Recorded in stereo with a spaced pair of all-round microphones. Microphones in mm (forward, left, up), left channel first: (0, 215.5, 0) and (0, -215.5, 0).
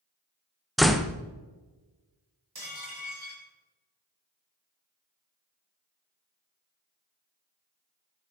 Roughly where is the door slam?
Centre.